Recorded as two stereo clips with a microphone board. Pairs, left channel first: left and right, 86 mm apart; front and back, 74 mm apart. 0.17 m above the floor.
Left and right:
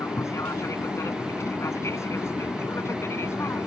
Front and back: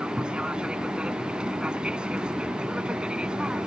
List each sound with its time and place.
0.0 s an aircraft: 110° left; by 3.7 s 115° left